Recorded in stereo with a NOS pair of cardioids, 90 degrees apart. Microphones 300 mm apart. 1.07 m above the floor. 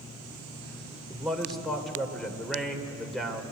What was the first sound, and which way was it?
A man speaking, straight ahead.